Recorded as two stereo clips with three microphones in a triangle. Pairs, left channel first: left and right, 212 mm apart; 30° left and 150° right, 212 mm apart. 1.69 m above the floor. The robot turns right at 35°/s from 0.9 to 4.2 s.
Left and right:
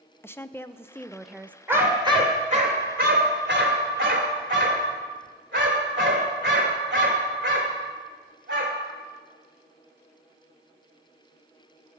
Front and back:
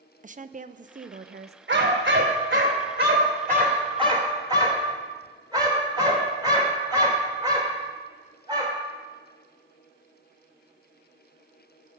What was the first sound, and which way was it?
A woman speaking, 170° left.